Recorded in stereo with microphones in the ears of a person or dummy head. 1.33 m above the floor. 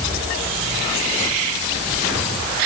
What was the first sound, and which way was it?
Only background noise.